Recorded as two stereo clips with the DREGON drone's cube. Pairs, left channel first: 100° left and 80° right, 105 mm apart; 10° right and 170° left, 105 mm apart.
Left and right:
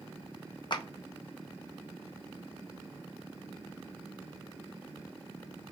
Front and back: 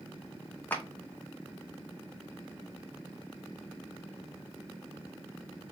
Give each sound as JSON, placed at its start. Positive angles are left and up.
{"t": 0.7, "sound": "a clap", "azimuth_deg": 60, "distance_m": 0.7}